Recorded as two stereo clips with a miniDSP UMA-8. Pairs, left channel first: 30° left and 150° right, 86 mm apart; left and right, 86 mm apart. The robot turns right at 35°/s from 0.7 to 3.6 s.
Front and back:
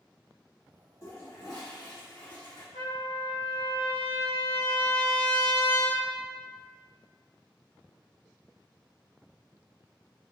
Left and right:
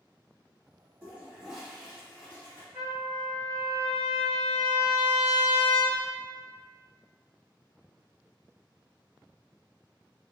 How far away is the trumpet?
About 1.2 m.